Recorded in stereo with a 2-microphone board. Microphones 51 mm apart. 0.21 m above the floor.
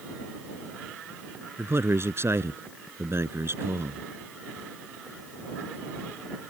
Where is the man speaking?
55° right (ahead or behind).